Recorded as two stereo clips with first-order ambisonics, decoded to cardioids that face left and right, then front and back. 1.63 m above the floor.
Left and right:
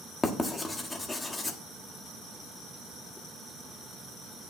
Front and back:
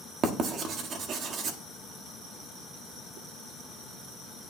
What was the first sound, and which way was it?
Writing, 160° left.